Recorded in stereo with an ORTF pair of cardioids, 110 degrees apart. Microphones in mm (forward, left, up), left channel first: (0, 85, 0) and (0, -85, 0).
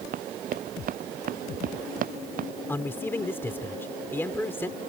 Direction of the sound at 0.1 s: 55° right.